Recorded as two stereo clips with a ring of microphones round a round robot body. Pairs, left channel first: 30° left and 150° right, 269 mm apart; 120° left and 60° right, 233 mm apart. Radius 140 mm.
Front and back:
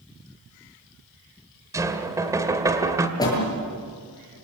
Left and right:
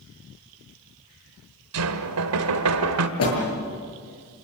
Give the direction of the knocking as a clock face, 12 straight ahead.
2 o'clock.